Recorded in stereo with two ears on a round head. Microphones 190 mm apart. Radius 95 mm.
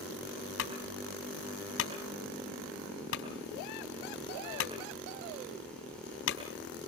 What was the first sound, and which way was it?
A clunk, 70° left (ahead or behind).